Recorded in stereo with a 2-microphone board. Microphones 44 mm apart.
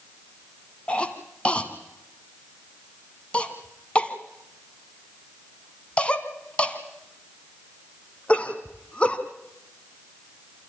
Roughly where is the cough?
Left.